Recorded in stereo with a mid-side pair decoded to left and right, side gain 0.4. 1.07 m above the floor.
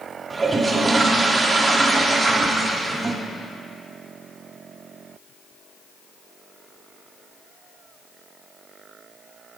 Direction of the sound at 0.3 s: 30° right.